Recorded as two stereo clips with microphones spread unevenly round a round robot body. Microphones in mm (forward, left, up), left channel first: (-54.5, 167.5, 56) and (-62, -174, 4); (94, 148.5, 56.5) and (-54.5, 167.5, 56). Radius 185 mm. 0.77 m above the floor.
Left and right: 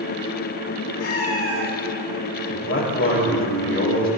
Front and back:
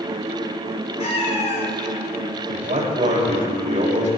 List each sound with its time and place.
1.0 s a cat meowing: 35° left, 6 m
2.5 s a man speaking: 145° left, 4 m